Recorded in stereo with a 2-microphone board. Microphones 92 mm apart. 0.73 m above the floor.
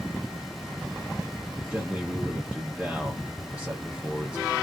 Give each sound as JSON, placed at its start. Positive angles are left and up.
{"t": 1.7, "sound": "a man speaking", "side_deg": -15, "distance_m": 0.8}